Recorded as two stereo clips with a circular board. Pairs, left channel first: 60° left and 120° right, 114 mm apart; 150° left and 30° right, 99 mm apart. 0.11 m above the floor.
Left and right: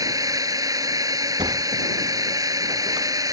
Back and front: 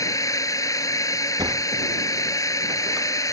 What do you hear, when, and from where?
0.0 s a drone: 165° right
1.4 s a sliding door: 75° right